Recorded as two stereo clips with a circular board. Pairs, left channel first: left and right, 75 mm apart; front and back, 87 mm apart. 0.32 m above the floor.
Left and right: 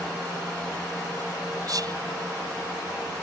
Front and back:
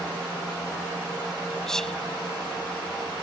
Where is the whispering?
85° right.